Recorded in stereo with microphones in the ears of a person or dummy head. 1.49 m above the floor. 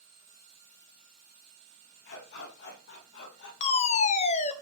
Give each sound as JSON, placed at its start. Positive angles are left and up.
{"t": 2.0, "sound": "a dog barking", "side_deg": 60, "distance_m": 7.5}
{"t": 3.6, "sound": "a fire alarm", "side_deg": 40, "distance_m": 2.0}